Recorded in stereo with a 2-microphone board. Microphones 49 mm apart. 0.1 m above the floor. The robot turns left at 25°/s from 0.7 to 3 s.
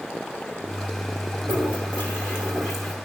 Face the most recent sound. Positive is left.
turn(degrees=-175)